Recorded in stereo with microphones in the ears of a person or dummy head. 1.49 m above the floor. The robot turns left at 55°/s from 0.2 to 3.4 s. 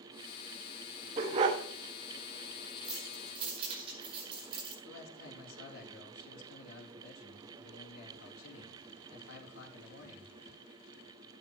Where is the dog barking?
20° right (ahead or behind), 0.9 m.